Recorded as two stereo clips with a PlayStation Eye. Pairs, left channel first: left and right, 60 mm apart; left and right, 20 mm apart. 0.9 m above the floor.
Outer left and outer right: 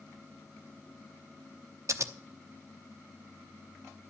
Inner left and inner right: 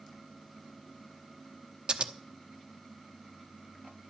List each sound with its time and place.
1.9 s scissors: 55° right (ahead or behind), 0.9 m